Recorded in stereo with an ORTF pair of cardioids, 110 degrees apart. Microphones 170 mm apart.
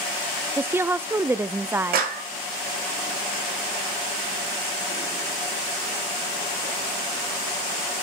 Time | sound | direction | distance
0.6 | a woman speaking | 15° right | 0.6 m
1.9 | a clap | 65° right | 2.5 m